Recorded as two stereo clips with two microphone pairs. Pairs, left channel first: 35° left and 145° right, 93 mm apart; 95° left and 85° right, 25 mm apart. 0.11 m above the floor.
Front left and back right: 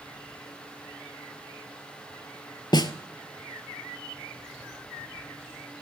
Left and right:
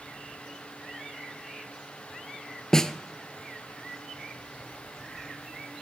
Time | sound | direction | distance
2.7 | a snare drum | 35° left | 0.8 m